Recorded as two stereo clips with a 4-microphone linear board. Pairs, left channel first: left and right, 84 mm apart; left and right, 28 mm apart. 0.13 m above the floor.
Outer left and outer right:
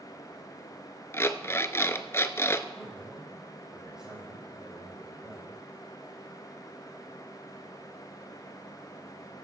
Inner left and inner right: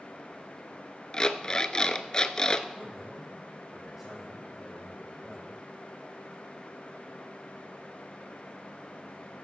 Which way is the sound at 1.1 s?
30° left (ahead or behind).